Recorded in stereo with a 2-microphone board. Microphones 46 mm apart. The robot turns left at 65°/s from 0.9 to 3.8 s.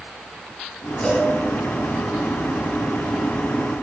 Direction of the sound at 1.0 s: 10° left (ahead or behind).